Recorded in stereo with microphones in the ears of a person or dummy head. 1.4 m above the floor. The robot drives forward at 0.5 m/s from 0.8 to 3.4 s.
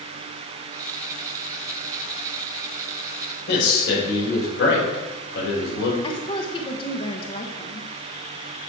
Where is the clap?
I don't hear a clap.